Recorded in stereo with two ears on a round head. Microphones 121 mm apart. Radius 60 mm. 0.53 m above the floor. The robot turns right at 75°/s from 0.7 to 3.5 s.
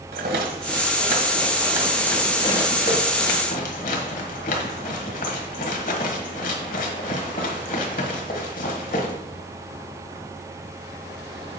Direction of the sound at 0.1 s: 80° right.